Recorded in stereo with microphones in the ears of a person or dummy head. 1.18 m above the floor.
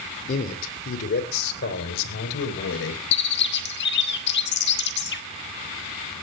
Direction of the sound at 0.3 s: 40° left (ahead or behind).